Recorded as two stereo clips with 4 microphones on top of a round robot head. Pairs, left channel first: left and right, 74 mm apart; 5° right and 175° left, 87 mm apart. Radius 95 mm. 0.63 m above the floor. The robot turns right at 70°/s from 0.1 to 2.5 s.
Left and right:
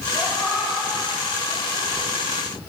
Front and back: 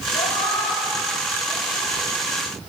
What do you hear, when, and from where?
0.1 s a cat meowing: 5° right, 6.5 m; by 2.1 s 130° left, 6.5 m